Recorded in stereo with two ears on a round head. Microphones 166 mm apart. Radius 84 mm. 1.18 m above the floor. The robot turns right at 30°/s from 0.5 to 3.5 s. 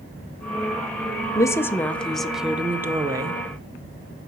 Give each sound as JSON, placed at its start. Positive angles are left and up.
{"t": 1.4, "sound": "a woman speaking", "azimuth_deg": 155, "distance_m": 0.5}